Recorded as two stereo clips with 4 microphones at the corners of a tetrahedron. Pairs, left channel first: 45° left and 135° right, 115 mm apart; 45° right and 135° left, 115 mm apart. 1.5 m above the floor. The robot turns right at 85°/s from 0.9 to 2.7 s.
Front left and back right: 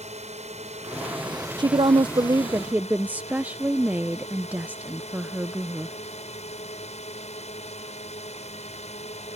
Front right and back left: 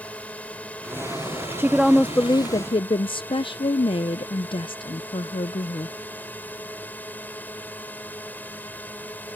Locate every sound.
0.0 s a drone: 120° right; by 9.4 s 30° left
1.6 s a woman speaking: 160° right; by 6.0 s 65° right